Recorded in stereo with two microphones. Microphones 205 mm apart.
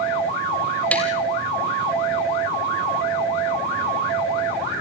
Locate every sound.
0.9 s tapping: 5° left (ahead or behind), 3.5 m